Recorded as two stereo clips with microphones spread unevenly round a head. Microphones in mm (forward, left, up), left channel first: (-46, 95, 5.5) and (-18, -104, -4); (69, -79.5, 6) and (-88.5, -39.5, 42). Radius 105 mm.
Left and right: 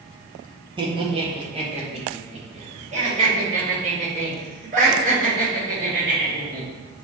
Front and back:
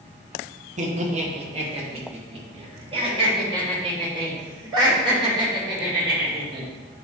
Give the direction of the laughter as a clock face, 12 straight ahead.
5 o'clock.